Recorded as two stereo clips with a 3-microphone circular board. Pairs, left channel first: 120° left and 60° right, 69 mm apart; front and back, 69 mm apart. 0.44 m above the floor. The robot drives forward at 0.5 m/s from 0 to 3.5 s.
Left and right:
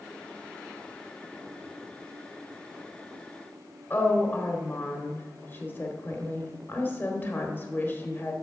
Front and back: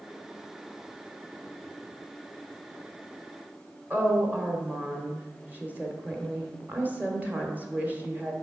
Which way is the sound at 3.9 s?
140° left.